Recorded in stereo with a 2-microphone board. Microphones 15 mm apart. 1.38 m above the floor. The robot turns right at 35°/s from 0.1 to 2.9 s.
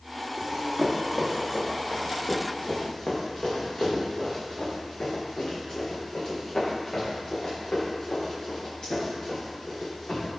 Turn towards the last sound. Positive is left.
turn(degrees=80)